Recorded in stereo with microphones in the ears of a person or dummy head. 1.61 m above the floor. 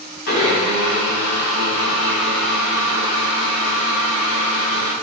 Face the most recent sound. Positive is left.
turn(degrees=50)  # may be behind; listen again after turning